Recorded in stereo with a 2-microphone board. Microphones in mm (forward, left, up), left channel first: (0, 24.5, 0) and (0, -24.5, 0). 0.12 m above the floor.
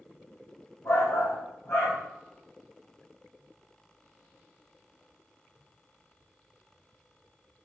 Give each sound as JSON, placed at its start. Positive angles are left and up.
{"t": 0.8, "sound": "a shout", "side_deg": 65, "distance_m": 4.0}